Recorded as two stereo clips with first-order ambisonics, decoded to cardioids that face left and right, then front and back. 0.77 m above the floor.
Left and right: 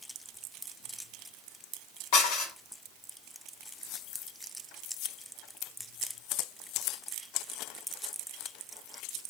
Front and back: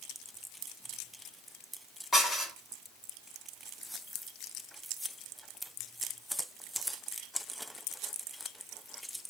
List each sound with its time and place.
2.1 s dishes clattering: 80° left, 1.6 m